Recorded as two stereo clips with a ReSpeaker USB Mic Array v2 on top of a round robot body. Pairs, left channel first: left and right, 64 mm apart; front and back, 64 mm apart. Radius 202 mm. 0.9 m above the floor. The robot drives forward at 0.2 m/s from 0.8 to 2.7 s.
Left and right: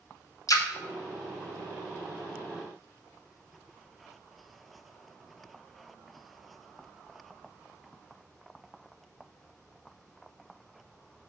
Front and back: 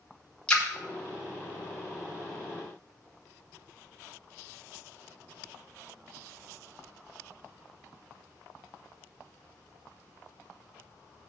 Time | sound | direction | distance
0.5 | a splash | 75° left | 1.4 m